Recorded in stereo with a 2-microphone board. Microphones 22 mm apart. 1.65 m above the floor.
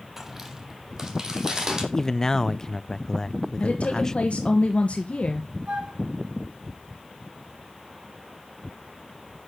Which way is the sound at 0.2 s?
15° right (ahead or behind).